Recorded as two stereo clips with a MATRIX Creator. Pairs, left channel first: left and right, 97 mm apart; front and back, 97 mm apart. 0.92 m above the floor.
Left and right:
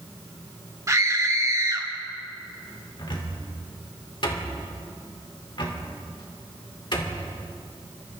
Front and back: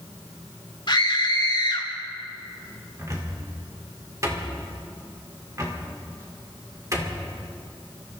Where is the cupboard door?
125° left, 2.5 m.